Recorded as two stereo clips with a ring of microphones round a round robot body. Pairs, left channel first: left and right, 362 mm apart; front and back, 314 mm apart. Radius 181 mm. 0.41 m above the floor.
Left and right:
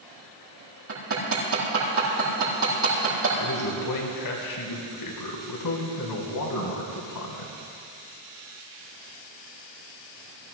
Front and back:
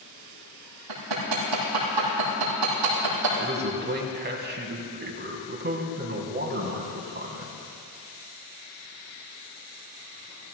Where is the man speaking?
125° left, 3.5 m.